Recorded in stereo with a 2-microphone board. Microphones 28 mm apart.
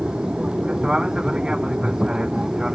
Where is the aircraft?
30° right (ahead or behind); by 2.8 s 25° right (ahead or behind).